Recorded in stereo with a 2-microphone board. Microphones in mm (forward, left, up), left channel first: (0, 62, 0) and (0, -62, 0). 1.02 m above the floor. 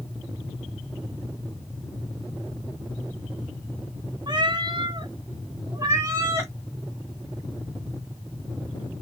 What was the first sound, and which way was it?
A cat meowing, 35° right (ahead or behind).